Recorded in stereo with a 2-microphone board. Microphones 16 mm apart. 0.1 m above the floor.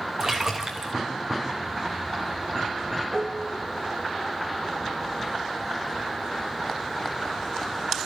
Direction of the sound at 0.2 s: 35° right (ahead or behind).